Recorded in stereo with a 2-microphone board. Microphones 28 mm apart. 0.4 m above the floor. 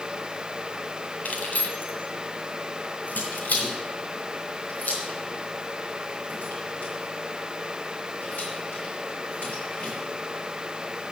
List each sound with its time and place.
1.2 s keys jangling: 55° left (ahead or behind), 2.5 m; by 9.9 s 50° left (ahead or behind), 7.5 m